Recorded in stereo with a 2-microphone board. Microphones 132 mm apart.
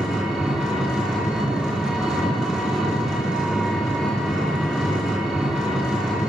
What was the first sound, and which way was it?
An engine running, 5° right (ahead or behind).